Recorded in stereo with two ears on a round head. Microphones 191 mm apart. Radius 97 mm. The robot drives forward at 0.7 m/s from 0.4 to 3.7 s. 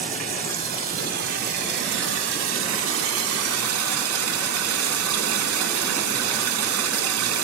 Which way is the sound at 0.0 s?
40° right (ahead or behind).